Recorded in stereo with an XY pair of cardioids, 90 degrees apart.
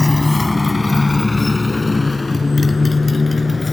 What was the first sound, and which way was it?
A motorcycle, 15° left.